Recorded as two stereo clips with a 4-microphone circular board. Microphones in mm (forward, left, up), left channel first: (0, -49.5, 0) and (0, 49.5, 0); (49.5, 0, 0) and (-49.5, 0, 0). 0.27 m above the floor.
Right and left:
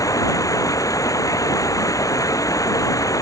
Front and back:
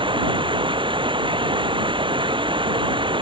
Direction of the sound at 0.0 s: 145° right.